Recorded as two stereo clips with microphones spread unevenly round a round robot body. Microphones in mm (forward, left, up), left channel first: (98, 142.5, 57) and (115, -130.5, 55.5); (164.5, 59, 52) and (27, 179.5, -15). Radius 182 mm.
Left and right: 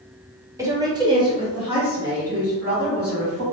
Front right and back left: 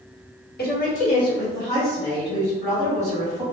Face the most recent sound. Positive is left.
turn(degrees=-165)